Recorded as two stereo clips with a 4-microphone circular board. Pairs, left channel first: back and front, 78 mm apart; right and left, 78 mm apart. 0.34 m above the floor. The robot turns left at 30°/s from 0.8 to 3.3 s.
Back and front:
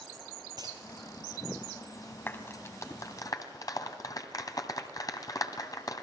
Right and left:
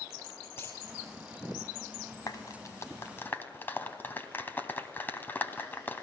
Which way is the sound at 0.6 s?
30° right.